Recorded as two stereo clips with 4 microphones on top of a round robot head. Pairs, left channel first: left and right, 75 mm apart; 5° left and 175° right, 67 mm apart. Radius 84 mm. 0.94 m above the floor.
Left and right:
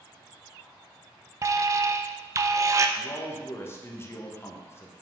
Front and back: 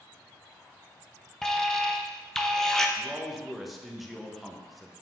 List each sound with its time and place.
1.4 s an alarm: 70° right, 0.6 m
3.0 s a man speaking: 100° left, 0.9 m